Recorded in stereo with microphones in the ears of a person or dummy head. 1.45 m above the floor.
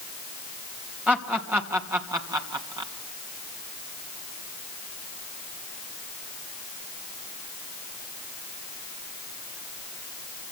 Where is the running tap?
No running tap in this recording.